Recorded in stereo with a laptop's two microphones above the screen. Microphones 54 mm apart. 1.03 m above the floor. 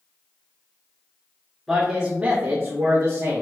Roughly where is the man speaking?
Centre.